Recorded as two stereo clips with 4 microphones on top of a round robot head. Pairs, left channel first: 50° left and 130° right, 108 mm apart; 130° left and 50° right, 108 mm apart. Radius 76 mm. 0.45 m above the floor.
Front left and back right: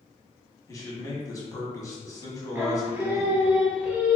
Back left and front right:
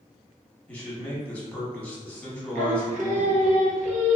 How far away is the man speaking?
About 1.4 m.